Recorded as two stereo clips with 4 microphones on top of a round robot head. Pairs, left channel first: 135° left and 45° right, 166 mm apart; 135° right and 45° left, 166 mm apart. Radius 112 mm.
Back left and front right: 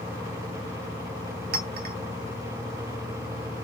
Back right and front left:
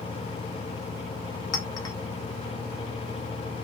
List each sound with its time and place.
1.5 s a clink: 70° right, 0.9 m